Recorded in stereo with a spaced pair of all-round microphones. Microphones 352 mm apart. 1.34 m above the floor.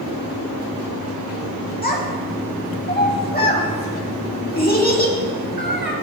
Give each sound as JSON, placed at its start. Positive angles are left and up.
{"t": 1.8, "sound": "a child speaking", "side_deg": 25, "distance_m": 1.8}